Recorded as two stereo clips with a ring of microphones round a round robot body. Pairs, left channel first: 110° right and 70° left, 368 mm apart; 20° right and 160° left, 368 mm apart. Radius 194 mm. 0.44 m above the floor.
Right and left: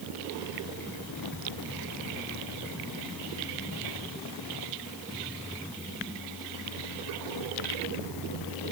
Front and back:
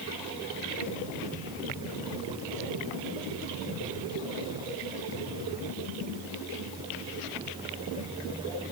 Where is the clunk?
I don't hear a clunk.